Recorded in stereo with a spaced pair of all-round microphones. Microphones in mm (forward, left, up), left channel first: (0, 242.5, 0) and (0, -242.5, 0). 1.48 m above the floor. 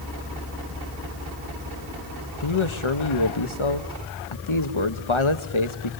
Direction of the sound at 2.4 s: 75° left (ahead or behind).